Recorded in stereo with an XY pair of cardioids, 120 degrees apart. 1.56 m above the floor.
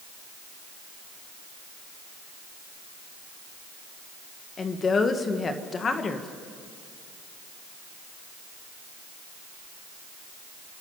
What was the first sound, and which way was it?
A woman speaking, 35° left.